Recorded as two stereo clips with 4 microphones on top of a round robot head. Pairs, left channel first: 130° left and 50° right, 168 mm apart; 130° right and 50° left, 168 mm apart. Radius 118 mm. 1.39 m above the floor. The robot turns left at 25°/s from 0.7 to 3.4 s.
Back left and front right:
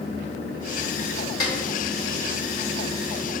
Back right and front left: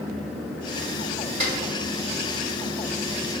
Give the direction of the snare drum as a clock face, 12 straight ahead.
9 o'clock.